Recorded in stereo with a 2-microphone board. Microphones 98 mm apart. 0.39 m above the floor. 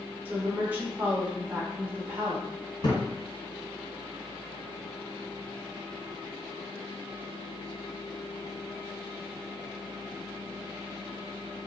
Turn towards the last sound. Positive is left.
turn(degrees=50)  # may be behind; listen again after turning